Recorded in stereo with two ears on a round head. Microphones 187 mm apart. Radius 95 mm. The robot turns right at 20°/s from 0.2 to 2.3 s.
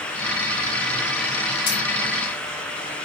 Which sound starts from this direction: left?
Keys jangling, at 1.7 s.